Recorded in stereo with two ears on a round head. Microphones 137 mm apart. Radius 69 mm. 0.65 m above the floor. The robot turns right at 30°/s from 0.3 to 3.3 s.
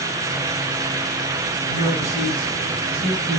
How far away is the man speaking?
About 6 m.